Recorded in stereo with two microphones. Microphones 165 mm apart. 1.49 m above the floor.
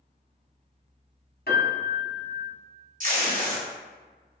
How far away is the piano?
About 1.0 m.